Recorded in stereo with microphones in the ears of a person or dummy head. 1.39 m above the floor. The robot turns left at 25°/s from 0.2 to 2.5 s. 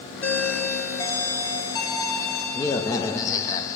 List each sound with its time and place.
0.2 s a doorbell: 15° left (ahead or behind), 0.9 m; by 3.8 s 20° left (ahead or behind), 0.9 m